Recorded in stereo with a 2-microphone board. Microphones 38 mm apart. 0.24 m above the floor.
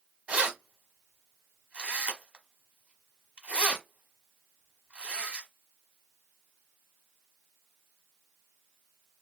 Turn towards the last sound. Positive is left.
turn(degrees=-35)  # may be behind; listen again after turning